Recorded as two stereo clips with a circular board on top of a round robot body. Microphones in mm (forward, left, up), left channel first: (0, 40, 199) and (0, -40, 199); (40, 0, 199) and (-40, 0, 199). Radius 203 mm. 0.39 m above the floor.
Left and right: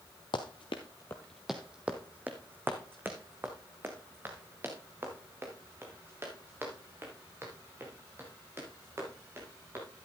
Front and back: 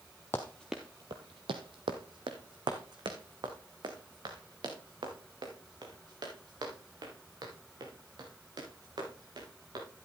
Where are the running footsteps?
65° left, 0.6 m; by 9.8 s 150° right, 7 m.